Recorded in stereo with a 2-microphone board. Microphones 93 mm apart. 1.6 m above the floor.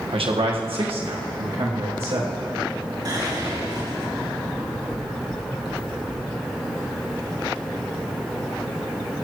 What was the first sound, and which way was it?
A man speaking, 75° right (ahead or behind).